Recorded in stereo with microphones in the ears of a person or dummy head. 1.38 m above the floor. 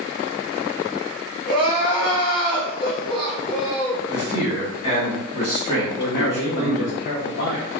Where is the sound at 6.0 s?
65° left (ahead or behind), 0.6 m.